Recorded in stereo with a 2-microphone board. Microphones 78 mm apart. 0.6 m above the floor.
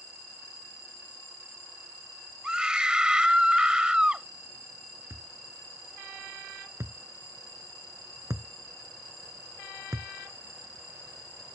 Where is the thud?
40° right (ahead or behind).